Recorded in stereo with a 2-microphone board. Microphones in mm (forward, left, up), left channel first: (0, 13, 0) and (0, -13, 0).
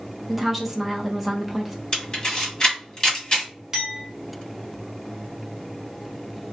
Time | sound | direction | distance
0.3 | a woman speaking | 10° right (ahead or behind) | 0.6 m
1.9 | a camera shutter | 30° left (ahead or behind) | 1.3 m
3.7 | a clink | 15° right (ahead or behind) | 1.7 m